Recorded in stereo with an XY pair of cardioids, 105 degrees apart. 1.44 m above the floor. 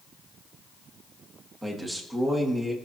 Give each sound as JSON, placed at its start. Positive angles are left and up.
{"t": 1.6, "sound": "a man speaking", "azimuth_deg": -20, "distance_m": 2.5}